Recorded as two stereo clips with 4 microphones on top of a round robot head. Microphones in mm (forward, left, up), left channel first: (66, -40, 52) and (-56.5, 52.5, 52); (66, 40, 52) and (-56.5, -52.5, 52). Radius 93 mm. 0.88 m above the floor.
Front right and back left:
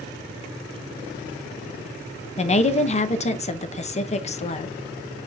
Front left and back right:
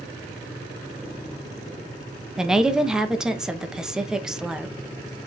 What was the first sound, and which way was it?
A woman speaking, 60° right.